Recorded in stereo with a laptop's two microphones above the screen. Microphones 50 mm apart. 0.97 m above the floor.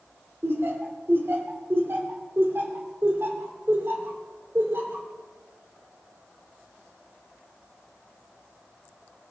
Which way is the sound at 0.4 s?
55° right (ahead or behind).